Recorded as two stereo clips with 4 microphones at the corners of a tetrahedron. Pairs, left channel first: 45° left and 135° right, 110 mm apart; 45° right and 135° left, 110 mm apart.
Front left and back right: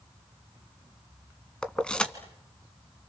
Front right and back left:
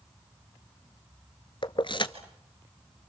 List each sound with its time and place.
1.6 s keys jangling: 35° right, 1.4 m